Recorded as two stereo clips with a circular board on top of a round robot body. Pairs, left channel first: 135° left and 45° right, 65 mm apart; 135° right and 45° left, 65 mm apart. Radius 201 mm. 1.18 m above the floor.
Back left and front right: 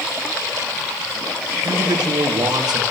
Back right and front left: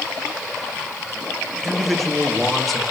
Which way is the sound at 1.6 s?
45° right.